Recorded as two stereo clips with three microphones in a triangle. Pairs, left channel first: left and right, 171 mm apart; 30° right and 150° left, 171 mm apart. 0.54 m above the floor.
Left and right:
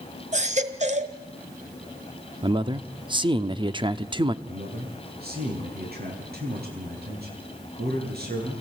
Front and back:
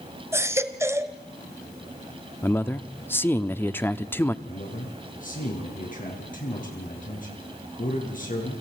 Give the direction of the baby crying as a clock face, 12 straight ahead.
4 o'clock.